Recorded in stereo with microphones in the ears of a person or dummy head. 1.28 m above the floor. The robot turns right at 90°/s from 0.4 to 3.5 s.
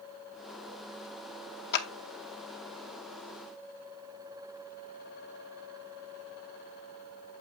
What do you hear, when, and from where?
1.7 s a clap: 65° left (ahead or behind), 1.2 m; by 1.9 s 75° left (ahead or behind), 1.2 m